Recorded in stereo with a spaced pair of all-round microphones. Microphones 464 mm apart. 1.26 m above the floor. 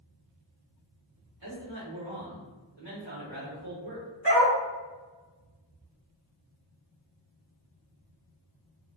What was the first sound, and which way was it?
A man speaking, 70° right (ahead or behind).